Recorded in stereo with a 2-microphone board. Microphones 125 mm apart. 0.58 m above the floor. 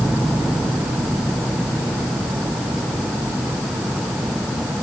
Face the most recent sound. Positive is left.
No sound to turn to.